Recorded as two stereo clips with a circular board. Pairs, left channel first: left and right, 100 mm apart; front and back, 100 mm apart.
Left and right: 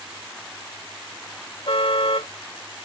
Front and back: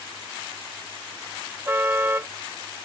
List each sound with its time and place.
1.7 s a car horn: 110° left